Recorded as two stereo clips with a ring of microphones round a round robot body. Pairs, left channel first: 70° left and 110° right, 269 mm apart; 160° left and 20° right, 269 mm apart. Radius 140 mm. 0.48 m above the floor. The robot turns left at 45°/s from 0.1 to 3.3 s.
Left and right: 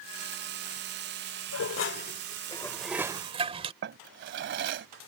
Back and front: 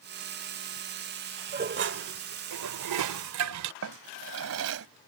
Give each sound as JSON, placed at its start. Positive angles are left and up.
{"t": 1.5, "sound": "dishes clattering", "azimuth_deg": 35}
{"t": 3.8, "sound": "a drawer", "azimuth_deg": -60}